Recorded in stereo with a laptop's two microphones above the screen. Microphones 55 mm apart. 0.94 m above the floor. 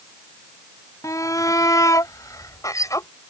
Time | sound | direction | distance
1.0 | a shout | 75° left (ahead or behind) | ?